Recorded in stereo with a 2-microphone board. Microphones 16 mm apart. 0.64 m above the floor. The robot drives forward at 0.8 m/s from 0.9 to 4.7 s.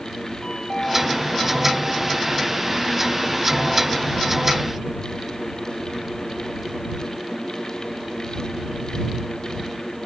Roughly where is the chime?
Left.